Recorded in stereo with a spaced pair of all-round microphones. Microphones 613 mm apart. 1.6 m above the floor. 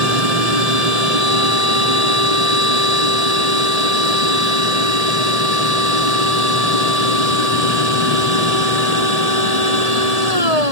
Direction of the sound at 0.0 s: 75° right (ahead or behind).